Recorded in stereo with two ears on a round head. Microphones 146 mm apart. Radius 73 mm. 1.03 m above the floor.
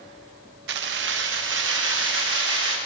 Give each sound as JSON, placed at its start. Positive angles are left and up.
{"t": 0.7, "sound": "keys jangling", "side_deg": -75, "distance_m": 0.5}